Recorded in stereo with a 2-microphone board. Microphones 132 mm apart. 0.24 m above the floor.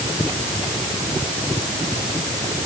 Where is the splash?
No splash in this recording.